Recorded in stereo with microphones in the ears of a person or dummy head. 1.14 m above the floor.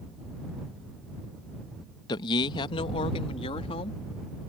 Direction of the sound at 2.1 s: 30° left (ahead or behind).